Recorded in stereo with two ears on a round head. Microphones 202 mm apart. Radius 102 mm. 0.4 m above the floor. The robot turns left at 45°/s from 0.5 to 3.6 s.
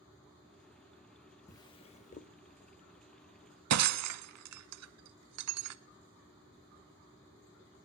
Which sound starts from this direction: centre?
A drawer, at 1.5 s.